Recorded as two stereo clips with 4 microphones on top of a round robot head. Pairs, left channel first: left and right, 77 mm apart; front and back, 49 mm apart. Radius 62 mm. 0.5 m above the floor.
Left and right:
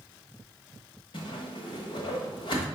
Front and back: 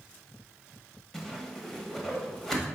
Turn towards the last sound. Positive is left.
turn(degrees=80)